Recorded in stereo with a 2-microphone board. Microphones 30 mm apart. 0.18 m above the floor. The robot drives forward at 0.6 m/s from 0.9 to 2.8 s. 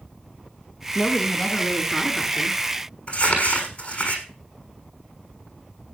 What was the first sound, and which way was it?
A woman speaking, 25° left (ahead or behind).